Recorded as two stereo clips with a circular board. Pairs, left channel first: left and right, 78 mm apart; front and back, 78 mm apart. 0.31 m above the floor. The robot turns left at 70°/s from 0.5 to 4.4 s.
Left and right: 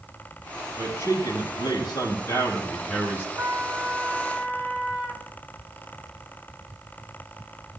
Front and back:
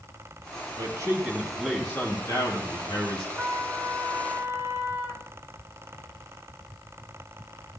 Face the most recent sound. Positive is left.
turn(degrees=165)